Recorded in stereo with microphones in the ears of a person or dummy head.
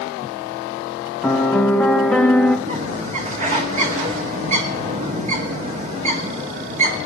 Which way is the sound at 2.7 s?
45° right (ahead or behind).